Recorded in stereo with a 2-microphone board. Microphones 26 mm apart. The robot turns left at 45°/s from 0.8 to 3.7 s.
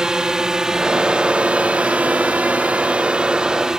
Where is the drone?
30° right (ahead or behind); by 3.8 s 20° right (ahead or behind).